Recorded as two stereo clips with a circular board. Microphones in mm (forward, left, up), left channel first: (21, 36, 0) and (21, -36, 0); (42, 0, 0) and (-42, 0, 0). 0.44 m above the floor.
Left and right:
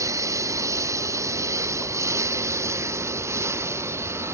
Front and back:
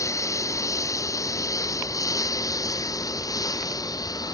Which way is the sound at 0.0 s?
50° right.